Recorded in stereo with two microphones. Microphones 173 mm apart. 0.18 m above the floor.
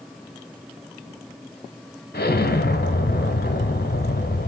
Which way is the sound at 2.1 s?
70° left (ahead or behind).